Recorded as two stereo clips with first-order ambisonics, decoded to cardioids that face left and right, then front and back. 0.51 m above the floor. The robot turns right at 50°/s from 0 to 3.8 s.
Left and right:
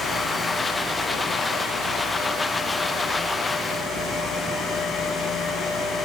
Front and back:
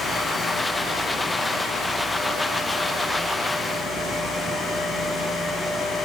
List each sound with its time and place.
Only background noise.